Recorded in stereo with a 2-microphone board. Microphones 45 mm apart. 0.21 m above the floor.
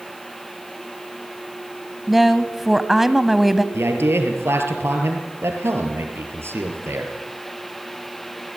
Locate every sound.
2.1 s a woman speaking: 5° right (ahead or behind), 1.0 m
3.7 s a man speaking: 70° right (ahead or behind), 4.5 m